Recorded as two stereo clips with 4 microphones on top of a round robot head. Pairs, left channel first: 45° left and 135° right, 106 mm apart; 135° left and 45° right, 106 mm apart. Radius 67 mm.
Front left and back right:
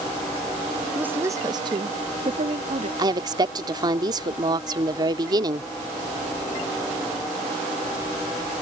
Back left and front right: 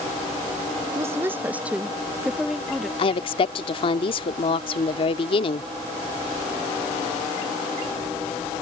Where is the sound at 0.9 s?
70° right; by 2.9 s 135° right.